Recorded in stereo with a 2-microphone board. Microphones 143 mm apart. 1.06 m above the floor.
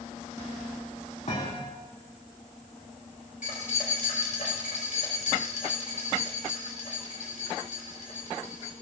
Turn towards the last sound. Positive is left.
turn(degrees=65)  # may be behind; listen again after turning